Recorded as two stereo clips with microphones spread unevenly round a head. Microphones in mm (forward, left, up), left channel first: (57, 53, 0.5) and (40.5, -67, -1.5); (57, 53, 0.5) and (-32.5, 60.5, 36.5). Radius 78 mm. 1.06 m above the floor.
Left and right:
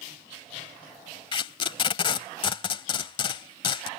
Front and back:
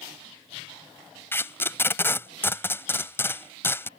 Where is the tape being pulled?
75° left.